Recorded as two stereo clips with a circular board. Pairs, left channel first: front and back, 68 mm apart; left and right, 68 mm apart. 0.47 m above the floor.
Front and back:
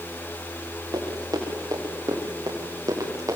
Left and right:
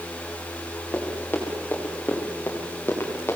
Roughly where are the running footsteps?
Behind left.